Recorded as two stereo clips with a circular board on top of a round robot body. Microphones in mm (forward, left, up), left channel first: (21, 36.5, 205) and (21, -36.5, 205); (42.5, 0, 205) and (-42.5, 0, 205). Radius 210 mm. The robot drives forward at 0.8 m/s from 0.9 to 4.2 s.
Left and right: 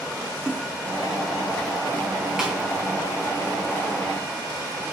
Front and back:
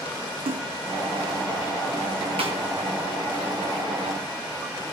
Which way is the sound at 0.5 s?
170° right.